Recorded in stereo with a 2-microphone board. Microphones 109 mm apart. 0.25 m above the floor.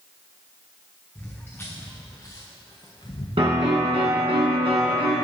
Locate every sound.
1.1 s footsteps: 15° left (ahead or behind), 2 m; by 3.3 s 60° left (ahead or behind), 1.3 m
3.4 s a piano: 60° right (ahead or behind), 2.5 m